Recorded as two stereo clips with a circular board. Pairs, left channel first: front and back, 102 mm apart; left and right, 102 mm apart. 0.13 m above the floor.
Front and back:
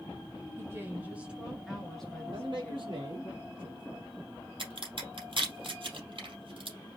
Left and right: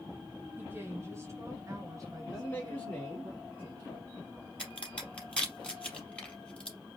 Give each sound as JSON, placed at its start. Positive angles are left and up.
{"t": 0.6, "sound": "a woman speaking", "azimuth_deg": -145, "distance_m": 1.8}
{"t": 2.3, "sound": "a man speaking", "azimuth_deg": 165, "distance_m": 2.5}
{"t": 4.6, "sound": "a crack", "azimuth_deg": 165, "distance_m": 3.0}